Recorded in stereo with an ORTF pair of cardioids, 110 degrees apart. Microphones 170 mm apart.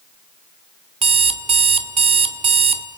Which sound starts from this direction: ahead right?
An alarm clock, at 1.0 s.